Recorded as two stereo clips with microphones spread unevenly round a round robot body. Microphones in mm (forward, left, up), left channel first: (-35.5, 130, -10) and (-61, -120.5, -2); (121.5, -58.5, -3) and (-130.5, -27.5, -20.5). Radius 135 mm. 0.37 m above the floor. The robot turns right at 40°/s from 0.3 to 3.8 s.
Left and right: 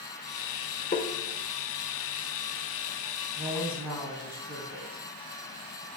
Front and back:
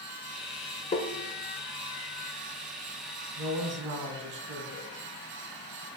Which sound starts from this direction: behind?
A woman speaking, at 3.4 s.